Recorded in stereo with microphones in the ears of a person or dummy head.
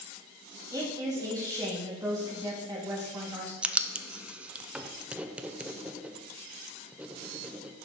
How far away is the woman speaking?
About 2.5 m.